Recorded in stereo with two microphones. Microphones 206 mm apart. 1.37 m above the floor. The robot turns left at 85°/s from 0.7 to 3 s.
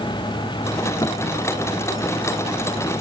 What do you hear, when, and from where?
1.0 s a thud: 20° left (ahead or behind); by 1.2 s 30° left (ahead or behind)